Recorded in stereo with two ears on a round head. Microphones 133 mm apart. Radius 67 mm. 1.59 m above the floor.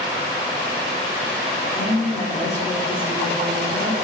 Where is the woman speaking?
20° left (ahead or behind), 4 m.